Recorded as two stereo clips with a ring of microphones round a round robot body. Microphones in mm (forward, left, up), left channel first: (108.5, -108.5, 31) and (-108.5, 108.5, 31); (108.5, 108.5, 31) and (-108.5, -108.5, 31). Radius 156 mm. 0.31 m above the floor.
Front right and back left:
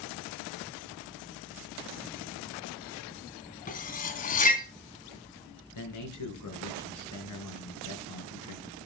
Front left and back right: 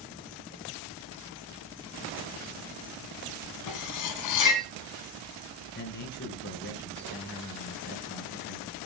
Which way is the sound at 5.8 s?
10° right.